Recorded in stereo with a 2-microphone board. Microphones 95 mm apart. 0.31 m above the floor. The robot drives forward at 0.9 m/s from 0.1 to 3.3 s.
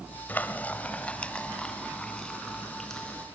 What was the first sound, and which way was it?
Frying, 20° left (ahead or behind).